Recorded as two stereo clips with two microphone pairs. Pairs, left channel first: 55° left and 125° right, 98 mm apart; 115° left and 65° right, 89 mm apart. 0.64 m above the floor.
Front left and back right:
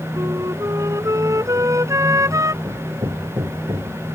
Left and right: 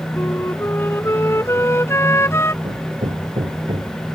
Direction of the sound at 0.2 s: 175° left.